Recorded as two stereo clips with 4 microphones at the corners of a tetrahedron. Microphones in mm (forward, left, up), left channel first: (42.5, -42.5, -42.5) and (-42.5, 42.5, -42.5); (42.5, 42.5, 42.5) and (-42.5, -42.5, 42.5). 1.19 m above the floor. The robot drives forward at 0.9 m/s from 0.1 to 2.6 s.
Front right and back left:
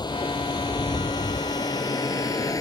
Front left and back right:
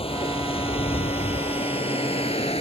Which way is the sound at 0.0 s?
10° left.